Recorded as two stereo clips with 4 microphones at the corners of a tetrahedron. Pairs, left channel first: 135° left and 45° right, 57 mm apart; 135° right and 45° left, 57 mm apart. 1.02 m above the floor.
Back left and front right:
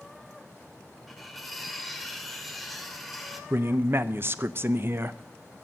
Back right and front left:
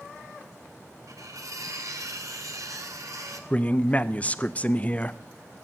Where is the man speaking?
75° right, 0.5 m.